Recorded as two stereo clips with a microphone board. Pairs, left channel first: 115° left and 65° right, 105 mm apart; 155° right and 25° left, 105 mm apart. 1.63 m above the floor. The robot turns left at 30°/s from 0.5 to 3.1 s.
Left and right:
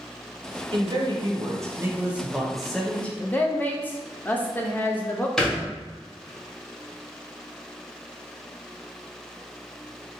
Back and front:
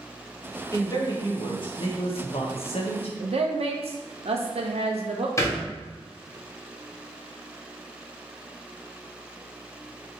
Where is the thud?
170° right, 1.1 m.